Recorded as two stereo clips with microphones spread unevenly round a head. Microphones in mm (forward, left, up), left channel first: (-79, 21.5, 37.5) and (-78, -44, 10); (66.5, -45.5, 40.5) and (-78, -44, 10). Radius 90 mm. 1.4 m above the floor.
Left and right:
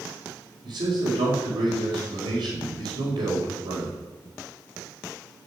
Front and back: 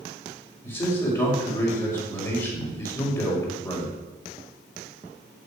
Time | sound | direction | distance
0.6 | a man speaking | 65° right | 5 m